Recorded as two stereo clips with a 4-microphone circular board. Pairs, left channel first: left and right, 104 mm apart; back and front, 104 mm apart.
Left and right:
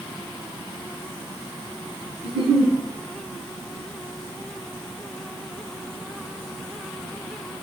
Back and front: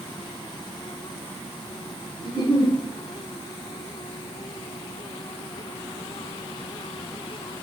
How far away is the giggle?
About 2.5 m.